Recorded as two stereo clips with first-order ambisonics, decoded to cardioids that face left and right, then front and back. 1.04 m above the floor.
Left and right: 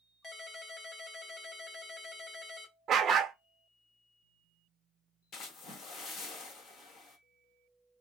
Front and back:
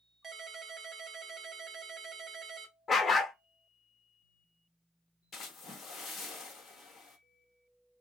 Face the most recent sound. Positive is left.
turn(degrees=55)